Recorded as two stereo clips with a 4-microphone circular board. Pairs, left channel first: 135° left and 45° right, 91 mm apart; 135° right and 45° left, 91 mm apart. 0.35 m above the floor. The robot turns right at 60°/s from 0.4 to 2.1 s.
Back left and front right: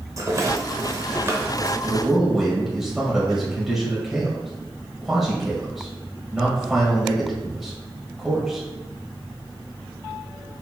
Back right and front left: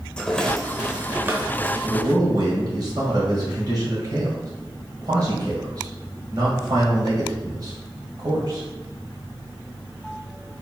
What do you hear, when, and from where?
0.2 s a rattle: 60° right, 0.8 m; by 1.7 s 20° left, 0.8 m
1.8 s a man speaking: 25° left, 2.0 m; by 8.6 s 40° left, 2.0 m